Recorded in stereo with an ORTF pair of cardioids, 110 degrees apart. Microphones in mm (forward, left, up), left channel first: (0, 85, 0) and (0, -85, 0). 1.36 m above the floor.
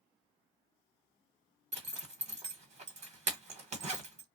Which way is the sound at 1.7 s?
40° right.